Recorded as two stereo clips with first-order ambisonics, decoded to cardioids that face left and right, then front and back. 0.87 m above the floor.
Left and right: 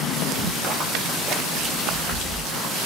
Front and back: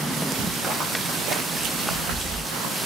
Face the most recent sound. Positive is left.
turn(degrees=180)